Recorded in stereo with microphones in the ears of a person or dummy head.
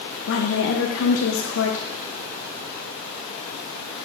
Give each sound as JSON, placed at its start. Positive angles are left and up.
{"t": 0.3, "sound": "a woman speaking", "side_deg": 65, "distance_m": 0.6}